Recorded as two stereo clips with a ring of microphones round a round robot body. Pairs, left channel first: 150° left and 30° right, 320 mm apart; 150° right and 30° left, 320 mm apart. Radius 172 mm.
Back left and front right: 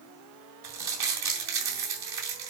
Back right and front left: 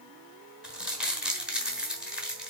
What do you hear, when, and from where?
0.6 s crumpling: 55° right, 3 m